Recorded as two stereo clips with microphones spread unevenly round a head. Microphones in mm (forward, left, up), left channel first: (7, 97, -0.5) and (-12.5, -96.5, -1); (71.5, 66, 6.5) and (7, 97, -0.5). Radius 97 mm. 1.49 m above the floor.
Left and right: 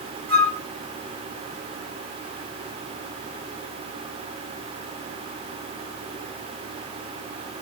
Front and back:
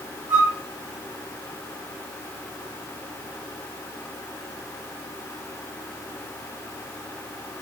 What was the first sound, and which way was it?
A flute, 130° right.